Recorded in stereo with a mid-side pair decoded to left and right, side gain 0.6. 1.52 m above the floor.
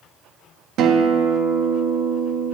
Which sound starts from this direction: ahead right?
A guitar, at 0.8 s.